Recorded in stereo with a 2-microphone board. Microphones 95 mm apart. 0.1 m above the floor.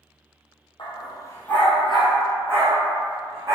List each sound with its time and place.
0.8 s a dog barking: 60° left (ahead or behind), 0.8 m; by 3.5 s 35° right (ahead or behind), 1.9 m